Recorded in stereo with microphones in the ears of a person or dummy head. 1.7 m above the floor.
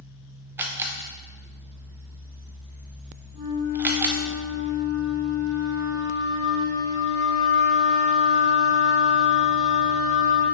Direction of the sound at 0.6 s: 5° right (ahead or behind).